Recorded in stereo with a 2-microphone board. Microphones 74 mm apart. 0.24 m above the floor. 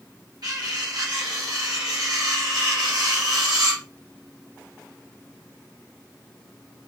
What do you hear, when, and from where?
0.4 s cutlery clinking: 65° right (ahead or behind), 2.5 m